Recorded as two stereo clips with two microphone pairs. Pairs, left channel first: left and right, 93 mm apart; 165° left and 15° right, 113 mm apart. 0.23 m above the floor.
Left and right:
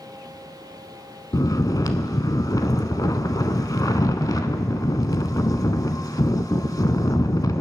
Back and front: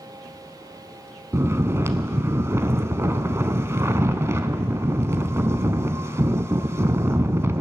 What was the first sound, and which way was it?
Snoring, 50° left.